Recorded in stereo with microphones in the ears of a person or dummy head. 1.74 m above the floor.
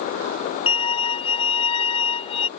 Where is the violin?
25° left (ahead or behind).